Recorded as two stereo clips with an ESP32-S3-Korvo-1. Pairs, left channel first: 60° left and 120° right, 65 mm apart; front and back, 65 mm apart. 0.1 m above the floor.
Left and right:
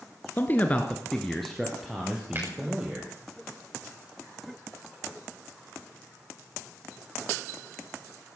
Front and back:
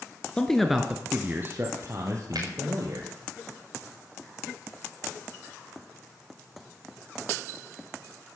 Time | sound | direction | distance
0.4 | a man speaking | 60° left | 1.5 m
2.4 | a finger snap | 175° right | 8 m